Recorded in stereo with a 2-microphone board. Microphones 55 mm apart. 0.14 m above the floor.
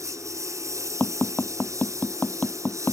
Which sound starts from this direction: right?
A lawn mower, at 0.0 s.